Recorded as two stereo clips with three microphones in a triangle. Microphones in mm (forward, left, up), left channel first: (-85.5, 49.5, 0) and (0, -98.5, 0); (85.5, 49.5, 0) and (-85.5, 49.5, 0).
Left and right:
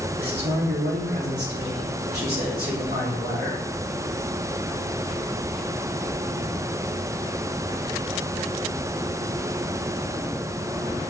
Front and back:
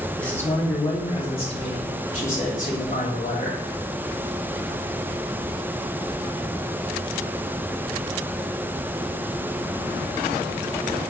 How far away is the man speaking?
About 1.6 m.